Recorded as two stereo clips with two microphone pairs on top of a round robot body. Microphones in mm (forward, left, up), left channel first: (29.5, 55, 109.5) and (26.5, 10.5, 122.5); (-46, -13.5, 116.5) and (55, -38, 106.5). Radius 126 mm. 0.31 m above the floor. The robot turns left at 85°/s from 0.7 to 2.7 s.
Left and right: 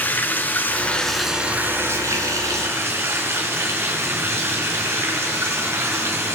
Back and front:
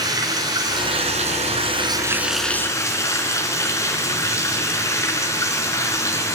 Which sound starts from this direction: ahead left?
Running water, at 0.0 s.